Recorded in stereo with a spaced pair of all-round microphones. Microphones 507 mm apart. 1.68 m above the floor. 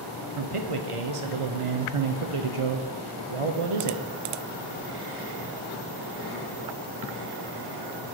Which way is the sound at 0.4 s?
80° right.